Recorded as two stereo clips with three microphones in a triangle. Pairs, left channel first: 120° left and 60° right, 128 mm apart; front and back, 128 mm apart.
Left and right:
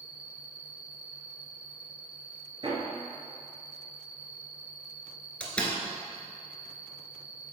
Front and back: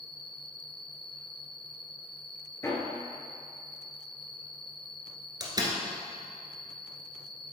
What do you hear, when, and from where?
0.0 s an insect: 85° left, 1.1 m
2.6 s hammering: 55° right, 1.7 m
5.4 s a door slam: 165° right, 1.3 m